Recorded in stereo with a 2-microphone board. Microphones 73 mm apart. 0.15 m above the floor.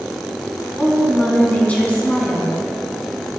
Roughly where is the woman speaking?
Left.